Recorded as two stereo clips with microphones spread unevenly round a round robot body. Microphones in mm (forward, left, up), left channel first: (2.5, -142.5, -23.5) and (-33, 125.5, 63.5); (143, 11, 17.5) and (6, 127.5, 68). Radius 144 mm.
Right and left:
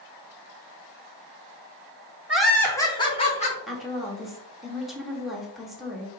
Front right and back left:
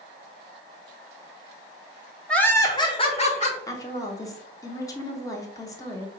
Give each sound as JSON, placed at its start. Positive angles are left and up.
{"t": 2.3, "sound": "laughter", "azimuth_deg": -40, "distance_m": 0.8}
{"t": 3.7, "sound": "a woman speaking", "azimuth_deg": -20, "distance_m": 0.9}